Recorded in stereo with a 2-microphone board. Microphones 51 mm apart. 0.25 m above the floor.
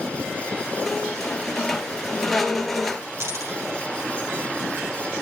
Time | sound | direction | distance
0.8 | a squeak | 5° left (ahead or behind) | 1.9 m
3.2 | a dropped coin | 65° right (ahead or behind) | 3.5 m